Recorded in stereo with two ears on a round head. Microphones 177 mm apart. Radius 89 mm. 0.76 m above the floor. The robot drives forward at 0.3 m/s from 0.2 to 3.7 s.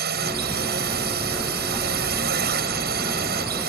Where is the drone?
55° right (ahead or behind).